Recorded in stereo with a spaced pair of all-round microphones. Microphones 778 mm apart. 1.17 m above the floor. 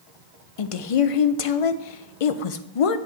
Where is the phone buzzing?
No phone buzzing in this recording.